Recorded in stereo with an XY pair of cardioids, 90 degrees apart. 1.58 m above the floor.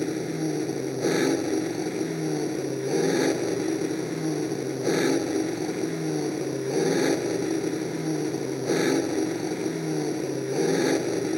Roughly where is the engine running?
Ahead.